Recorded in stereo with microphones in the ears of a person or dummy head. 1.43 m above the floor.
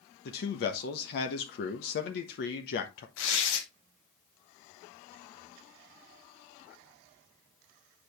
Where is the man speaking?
55° left (ahead or behind), 1.1 m.